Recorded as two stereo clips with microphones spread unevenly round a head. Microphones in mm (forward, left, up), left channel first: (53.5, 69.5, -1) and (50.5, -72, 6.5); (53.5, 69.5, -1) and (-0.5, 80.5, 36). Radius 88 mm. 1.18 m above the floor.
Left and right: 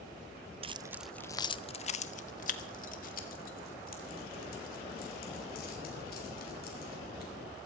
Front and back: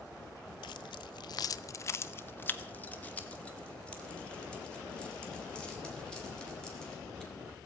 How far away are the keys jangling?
About 0.5 m.